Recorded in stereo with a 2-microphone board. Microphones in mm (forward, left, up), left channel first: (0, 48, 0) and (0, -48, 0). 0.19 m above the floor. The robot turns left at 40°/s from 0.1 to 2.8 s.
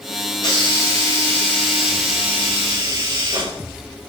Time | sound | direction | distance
0.4 | a hiss | 55° left | 9 m